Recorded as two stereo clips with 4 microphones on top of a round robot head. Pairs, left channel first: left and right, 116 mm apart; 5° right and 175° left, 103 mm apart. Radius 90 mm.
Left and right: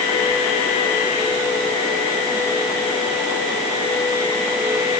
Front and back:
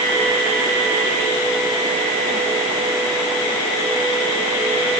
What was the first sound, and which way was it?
Only background noise.